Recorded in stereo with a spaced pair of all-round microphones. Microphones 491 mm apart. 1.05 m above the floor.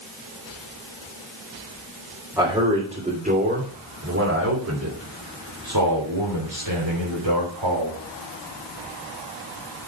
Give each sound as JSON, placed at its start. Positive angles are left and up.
{"t": 2.4, "sound": "a man speaking", "side_deg": -5, "distance_m": 3.5}